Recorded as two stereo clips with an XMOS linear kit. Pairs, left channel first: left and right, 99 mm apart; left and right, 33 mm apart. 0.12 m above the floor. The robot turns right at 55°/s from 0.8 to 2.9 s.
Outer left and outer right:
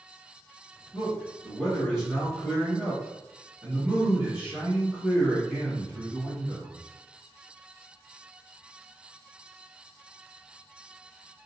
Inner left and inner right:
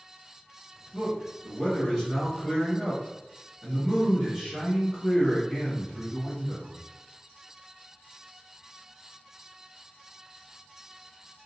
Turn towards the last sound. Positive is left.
turn(degrees=-20)  # may be behind; listen again after turning